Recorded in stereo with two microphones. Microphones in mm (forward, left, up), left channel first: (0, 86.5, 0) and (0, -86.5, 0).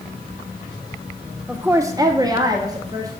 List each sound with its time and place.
1.5 s a woman speaking: 10° right (ahead or behind), 0.7 m; by 3.1 s 20° right (ahead or behind), 1.7 m